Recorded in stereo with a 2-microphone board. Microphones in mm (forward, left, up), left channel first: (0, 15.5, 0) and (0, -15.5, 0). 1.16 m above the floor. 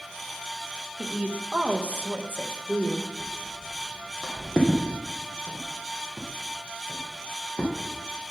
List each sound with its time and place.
1.0 s a woman speaking: 35° right (ahead or behind), 1.5 m; by 3.1 s 55° right (ahead or behind), 1.2 m
3.2 s footsteps: centre (ahead or behind), 2.5 m; by 7.7 s 45° left (ahead or behind), 4 m